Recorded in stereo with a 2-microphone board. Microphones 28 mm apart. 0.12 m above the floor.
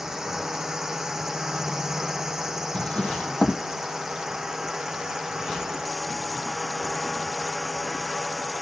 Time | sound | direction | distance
0.0 | a drone | 20° right (ahead or behind) | ?
2.7 | a drawer | 40° left (ahead or behind) | ?